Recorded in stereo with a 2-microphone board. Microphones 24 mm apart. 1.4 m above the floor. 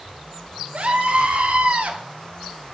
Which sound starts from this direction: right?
A scream, at 0.7 s.